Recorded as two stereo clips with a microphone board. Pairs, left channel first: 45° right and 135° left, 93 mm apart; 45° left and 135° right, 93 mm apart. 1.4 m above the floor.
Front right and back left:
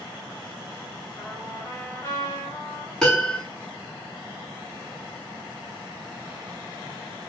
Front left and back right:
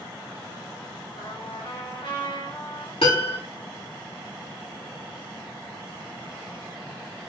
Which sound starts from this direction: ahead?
A trumpet, at 1.2 s.